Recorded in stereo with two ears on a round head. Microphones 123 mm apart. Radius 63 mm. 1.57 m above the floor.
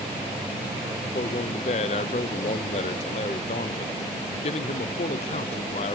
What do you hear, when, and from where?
1.1 s a man speaking: 45° left (ahead or behind), 0.6 m